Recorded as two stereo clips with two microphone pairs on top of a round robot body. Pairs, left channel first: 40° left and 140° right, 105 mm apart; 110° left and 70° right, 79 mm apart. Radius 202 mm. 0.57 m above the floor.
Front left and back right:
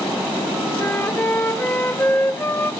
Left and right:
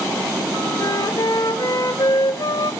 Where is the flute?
105° left, 1.3 m.